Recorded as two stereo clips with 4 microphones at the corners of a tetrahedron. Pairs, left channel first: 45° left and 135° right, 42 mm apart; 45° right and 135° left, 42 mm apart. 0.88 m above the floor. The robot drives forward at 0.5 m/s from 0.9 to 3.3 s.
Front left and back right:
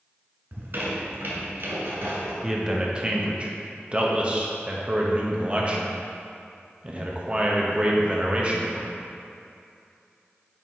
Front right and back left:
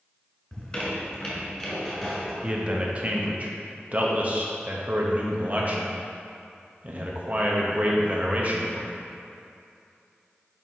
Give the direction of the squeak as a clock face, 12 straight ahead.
4 o'clock.